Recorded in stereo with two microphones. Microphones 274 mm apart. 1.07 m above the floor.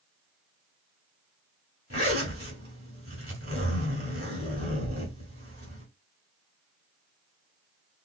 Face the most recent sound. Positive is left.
turn(degrees=-50)  # may be behind; listen again after turning